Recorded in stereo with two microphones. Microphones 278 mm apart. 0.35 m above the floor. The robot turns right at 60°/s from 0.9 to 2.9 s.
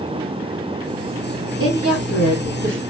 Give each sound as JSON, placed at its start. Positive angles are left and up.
{"t": 1.6, "sound": "a woman speaking", "azimuth_deg": -125, "distance_m": 2.5}